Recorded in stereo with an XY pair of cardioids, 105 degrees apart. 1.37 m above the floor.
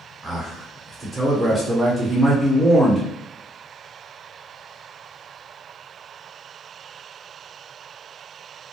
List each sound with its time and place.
0.2 s a man speaking: 10° right, 1.0 m